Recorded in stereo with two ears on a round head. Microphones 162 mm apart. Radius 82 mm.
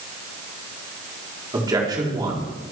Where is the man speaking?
20° right (ahead or behind), 4.5 m.